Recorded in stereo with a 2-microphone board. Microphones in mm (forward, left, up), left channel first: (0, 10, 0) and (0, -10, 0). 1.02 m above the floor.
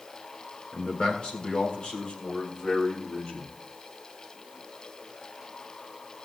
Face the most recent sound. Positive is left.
turn(degrees=70)  # may be behind; listen again after turning